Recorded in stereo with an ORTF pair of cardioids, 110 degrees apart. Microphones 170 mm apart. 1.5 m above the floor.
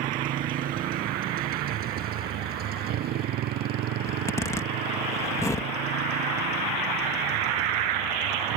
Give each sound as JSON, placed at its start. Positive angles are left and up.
{"t": 0.0, "sound": "a motorcycle", "azimuth_deg": -55}
{"t": 4.1, "sound": "a zipper", "azimuth_deg": 15}